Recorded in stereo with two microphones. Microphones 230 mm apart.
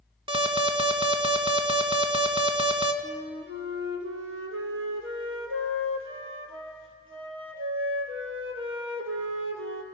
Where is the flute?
70° right (ahead or behind), 2.5 m.